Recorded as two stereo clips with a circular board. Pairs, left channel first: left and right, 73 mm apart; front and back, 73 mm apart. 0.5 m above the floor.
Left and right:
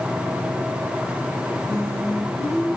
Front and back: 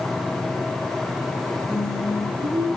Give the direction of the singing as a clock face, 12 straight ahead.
6 o'clock.